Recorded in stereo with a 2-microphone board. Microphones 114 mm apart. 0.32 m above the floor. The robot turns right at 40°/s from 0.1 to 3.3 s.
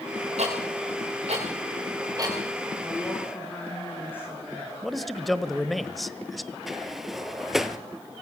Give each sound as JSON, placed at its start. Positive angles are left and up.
{"t": 0.4, "sound": "ticking", "side_deg": -75, "distance_m": 9.0}
{"t": 2.8, "sound": "a woman speaking", "side_deg": 0, "distance_m": 4.0}
{"t": 4.8, "sound": "a man speaking", "side_deg": 0, "distance_m": 1.3}
{"t": 6.7, "sound": "a sliding door", "side_deg": 0, "distance_m": 1.4}